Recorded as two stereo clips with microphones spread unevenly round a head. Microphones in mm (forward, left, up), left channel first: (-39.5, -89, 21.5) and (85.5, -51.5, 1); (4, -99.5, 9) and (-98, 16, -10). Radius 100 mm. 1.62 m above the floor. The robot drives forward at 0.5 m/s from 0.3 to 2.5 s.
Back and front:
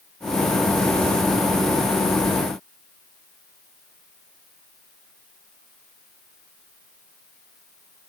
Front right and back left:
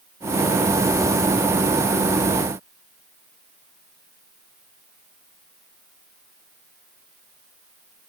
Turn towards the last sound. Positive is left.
No sound to turn to.